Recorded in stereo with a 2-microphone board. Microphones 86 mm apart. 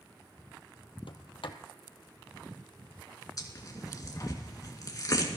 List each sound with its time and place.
1.1 s a sliding door: 80° left, 1.1 m
3.4 s tearing paper: 45° left (ahead or behind), 2.5 m